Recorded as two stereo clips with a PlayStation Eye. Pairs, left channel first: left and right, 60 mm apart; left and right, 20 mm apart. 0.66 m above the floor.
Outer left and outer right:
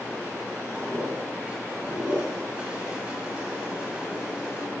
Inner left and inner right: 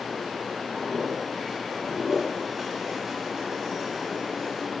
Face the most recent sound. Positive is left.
turn(degrees=-20)  # may be behind; listen again after turning